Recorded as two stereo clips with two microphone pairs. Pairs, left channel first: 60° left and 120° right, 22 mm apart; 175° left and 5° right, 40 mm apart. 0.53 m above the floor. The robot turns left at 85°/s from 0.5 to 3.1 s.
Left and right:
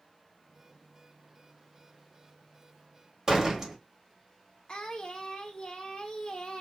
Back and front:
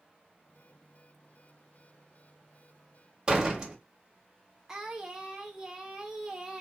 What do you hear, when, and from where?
3.3 s a door slam: 65° right, 1.1 m
4.7 s singing: 65° left, 0.7 m